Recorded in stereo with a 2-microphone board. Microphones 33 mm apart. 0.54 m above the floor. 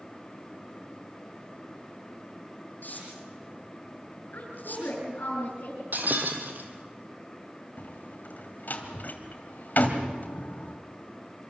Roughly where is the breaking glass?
Right.